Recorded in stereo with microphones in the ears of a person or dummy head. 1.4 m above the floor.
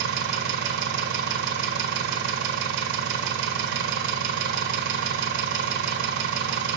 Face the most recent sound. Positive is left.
turn(degrees=-60)  # may be behind; listen again after turning